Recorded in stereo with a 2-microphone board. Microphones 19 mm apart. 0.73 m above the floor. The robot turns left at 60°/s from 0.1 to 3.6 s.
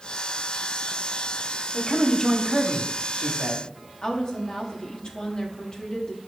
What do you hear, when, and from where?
1.7 s a man speaking: 45° left, 1.2 m; by 3.6 s 70° right, 1.2 m
4.0 s a woman speaking: 50° left (ahead or behind), 1.4 m